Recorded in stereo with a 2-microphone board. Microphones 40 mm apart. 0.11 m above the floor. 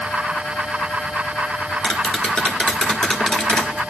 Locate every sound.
1.8 s tapping: 20° left (ahead or behind), 1.0 m